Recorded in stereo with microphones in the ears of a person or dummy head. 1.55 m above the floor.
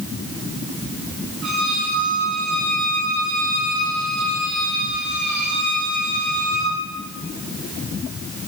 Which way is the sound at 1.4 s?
70° right (ahead or behind).